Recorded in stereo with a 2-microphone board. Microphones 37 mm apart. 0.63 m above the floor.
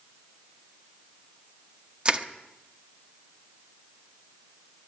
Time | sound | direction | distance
2.0 | crushing | 30° right (ahead or behind) | 1.0 m